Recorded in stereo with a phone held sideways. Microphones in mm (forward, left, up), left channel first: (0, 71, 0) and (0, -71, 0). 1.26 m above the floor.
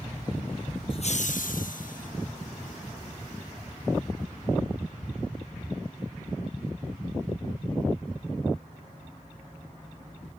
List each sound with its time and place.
0.9 s laughter: 40° left (ahead or behind); by 2.1 s 70° left (ahead or behind)